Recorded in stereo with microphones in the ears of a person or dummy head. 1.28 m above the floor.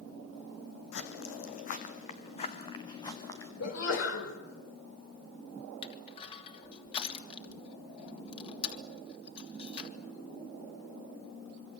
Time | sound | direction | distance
0.9 | footsteps | 60° left (ahead or behind) | 3 m
3.6 | a sneeze | 70° left (ahead or behind) | 5.5 m
5.8 | crushing | 30° left (ahead or behind) | 3 m